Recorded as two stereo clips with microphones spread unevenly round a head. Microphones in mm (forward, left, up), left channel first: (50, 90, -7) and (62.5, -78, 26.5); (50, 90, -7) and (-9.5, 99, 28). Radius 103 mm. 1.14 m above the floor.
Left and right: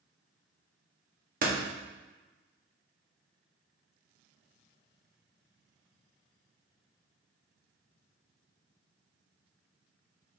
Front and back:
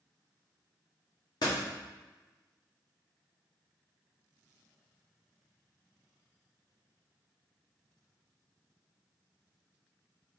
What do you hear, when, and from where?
1.4 s a door slam: 50° right, 1.5 m